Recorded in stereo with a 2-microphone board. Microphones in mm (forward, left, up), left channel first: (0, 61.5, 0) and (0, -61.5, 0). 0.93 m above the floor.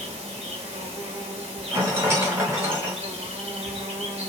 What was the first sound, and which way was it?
An insect, 55° right (ahead or behind).